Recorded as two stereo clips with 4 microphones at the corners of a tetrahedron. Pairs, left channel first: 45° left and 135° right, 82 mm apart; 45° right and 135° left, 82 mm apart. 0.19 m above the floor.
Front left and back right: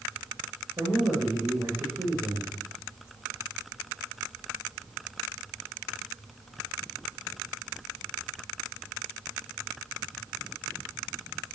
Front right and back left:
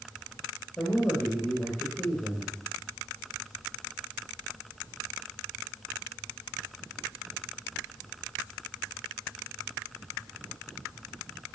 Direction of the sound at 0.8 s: 100° right.